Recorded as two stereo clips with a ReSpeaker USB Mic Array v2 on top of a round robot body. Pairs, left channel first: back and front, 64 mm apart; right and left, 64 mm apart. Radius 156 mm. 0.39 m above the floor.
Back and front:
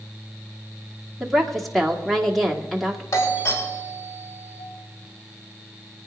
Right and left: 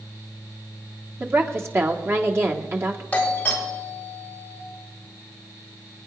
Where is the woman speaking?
90° left, 1.8 m.